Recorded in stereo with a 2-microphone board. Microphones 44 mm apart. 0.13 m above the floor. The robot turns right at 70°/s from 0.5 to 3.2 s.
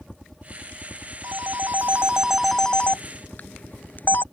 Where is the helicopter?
5° left; by 4.3 s 165° right.